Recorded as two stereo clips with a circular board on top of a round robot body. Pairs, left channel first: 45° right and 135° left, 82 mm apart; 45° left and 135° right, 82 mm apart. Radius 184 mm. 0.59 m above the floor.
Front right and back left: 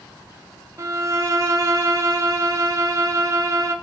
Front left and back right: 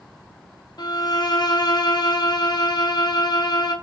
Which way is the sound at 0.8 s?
85° left.